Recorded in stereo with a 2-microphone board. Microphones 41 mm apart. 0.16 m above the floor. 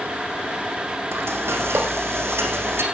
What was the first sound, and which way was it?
Frying, 80° right.